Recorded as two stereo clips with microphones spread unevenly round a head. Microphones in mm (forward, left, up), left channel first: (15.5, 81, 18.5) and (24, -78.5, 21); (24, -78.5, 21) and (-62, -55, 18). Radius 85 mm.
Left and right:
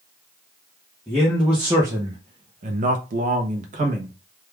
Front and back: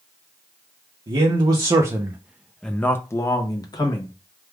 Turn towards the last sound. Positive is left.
turn(degrees=-45)